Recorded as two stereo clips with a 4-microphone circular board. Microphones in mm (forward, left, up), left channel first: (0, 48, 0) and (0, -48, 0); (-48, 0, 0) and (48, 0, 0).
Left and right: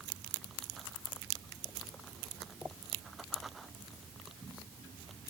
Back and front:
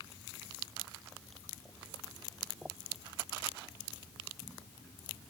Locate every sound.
Only background noise.